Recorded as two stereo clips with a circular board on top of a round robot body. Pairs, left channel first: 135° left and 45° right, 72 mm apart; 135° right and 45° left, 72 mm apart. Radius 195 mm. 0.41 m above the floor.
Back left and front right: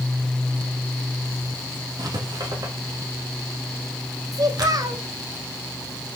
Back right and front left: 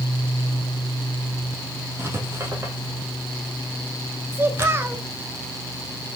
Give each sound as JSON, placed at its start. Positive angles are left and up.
{"t": 2.0, "sound": "writing", "azimuth_deg": -10, "distance_m": 3.5}
{"t": 4.3, "sound": "a child speaking", "azimuth_deg": -10, "distance_m": 1.7}